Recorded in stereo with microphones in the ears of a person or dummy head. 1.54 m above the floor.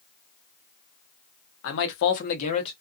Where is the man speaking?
70° left (ahead or behind), 1.0 m; by 2.7 s 30° left (ahead or behind), 1.1 m.